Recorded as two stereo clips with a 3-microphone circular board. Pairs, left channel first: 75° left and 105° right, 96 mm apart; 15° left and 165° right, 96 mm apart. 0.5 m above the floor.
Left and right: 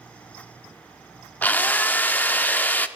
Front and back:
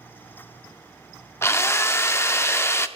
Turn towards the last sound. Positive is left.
turn(degrees=30)